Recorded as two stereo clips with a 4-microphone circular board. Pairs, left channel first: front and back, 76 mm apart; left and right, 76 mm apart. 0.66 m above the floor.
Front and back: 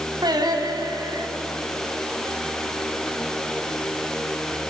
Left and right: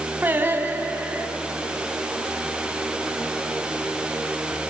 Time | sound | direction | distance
0.2 | singing | 155° right | 3 m